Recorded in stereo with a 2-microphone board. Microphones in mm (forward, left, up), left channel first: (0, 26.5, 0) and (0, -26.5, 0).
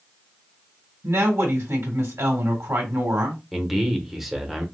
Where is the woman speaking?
65° right (ahead or behind), 1.9 m.